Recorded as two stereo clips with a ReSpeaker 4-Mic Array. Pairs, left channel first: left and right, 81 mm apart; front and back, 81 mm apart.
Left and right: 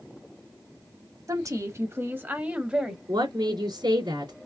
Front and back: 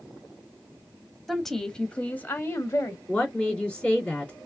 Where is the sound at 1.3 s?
90° right, 1.3 m; by 3.0 s 15° right, 1.2 m.